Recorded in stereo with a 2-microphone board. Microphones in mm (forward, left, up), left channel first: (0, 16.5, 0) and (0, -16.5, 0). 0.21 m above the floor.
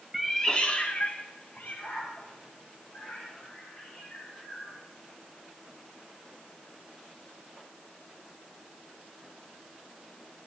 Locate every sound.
0.1 s a cat meowing: 5° right (ahead or behind), 0.8 m; by 4.8 s 70° left (ahead or behind), 7 m